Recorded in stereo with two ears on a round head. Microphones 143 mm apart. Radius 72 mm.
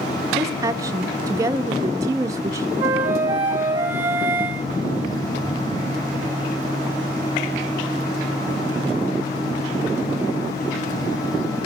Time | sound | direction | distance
0.3 | a woman speaking | 20° right (ahead or behind) | 0.6 m
2.8 | a flute | 15° right (ahead or behind) | 1.6 m